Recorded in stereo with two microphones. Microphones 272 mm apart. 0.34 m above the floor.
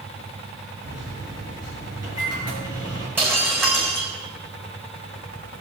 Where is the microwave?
65° right (ahead or behind), 5 m.